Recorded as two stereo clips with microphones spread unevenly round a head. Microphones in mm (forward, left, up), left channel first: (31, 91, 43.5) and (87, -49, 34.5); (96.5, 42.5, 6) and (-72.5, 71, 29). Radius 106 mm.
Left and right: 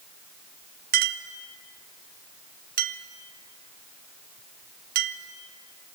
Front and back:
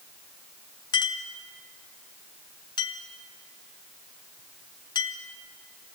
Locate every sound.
0.9 s a clink: 80° right, 0.7 m